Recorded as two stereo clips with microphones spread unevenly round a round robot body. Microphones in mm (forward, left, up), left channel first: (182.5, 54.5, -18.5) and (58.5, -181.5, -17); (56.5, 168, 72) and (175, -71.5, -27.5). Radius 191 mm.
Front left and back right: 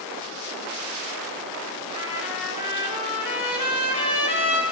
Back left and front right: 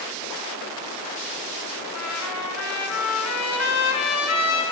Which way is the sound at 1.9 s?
90° left.